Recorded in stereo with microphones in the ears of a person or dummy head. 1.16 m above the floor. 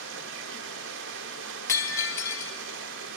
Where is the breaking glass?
10° left (ahead or behind), 0.7 m.